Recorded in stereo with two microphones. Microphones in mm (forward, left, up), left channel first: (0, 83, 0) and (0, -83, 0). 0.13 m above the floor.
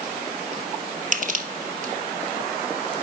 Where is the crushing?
50° right (ahead or behind), 2 m.